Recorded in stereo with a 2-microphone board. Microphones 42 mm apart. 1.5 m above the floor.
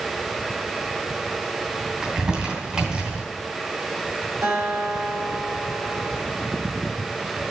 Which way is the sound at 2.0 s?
20° right (ahead or behind).